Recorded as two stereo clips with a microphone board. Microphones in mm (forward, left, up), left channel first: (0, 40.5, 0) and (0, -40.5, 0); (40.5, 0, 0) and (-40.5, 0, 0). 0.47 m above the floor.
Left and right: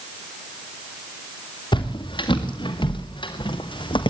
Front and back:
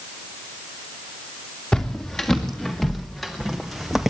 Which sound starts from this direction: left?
Footsteps, at 1.7 s.